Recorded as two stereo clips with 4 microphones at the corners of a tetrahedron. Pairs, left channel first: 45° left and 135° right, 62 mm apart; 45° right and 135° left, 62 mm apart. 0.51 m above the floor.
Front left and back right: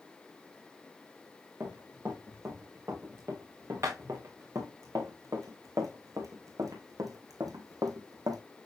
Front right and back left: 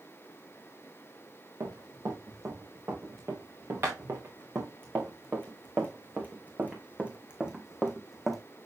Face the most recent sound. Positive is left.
turn(degrees=-135)